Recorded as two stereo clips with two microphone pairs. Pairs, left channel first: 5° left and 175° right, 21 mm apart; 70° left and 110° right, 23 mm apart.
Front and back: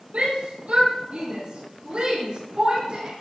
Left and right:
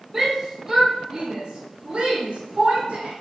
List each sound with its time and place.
0.1 s a shout: 175° left, 4.5 m; by 3.1 s 140° right, 5.5 m